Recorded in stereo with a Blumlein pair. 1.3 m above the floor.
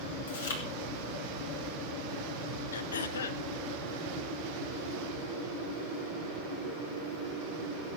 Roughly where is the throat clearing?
Ahead left.